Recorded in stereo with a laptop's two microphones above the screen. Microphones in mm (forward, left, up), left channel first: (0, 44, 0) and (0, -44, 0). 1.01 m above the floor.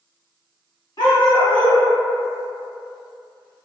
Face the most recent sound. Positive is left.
turn(degrees=60)  # may be behind; listen again after turning